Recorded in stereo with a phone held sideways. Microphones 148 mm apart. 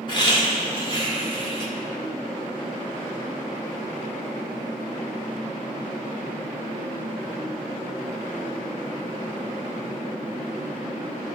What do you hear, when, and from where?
0.1 s laughter: 30° left (ahead or behind), 2.5 m